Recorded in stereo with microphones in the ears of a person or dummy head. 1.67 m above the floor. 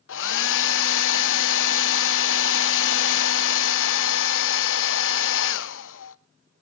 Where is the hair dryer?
65° left (ahead or behind), 0.6 m.